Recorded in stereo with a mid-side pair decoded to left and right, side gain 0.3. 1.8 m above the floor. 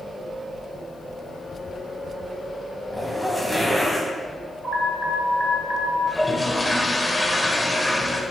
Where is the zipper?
10° right, 2 m.